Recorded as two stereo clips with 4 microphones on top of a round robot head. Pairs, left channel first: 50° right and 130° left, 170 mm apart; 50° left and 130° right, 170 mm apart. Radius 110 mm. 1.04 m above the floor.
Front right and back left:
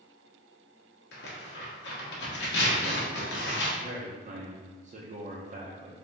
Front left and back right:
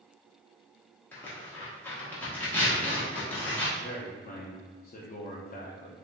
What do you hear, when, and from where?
1.1 s tearing paper: 30° right, 1.1 m
3.8 s a man speaking: 85° left, 0.6 m